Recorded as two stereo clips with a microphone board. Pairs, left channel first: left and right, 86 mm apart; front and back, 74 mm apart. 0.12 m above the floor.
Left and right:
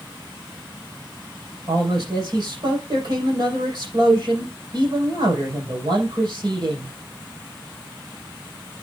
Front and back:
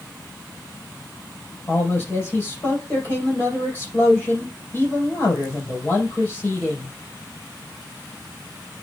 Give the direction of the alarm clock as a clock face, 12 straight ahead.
I don't hear an alarm clock.